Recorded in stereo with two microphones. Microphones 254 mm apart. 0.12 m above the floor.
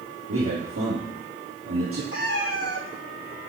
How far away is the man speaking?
About 3.5 m.